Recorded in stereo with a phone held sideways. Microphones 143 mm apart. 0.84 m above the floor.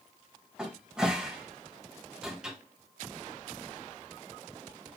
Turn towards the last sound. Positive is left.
turn(degrees=-5)  # may be behind; listen again after turning